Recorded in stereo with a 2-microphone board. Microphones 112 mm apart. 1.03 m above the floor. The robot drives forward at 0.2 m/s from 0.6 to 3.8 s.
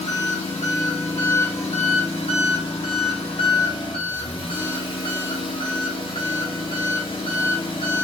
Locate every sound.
0.0 s an engine running: 80° left, 1.1 m; by 8.0 s 50° left (ahead or behind), 1.4 m